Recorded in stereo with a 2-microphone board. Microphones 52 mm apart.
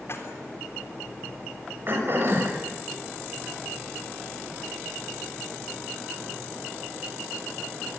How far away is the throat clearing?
About 7 m.